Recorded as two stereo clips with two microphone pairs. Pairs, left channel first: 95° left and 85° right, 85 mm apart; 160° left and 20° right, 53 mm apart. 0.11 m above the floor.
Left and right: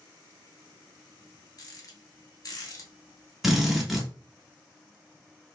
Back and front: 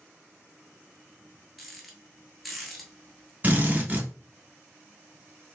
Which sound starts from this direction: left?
A rattle, at 1.6 s.